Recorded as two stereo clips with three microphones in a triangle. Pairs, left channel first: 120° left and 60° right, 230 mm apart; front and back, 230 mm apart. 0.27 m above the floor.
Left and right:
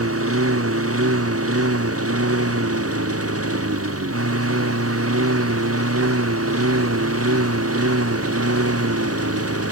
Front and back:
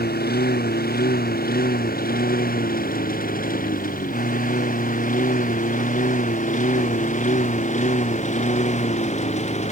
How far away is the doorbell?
No doorbell in this recording.